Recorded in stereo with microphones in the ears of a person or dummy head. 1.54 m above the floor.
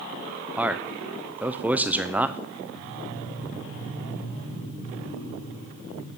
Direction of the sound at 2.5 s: 75° left (ahead or behind).